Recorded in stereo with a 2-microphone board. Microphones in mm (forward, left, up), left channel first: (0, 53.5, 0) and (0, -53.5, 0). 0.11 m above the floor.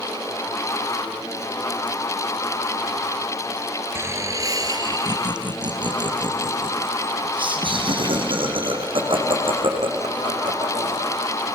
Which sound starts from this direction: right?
Laughter, at 4.0 s.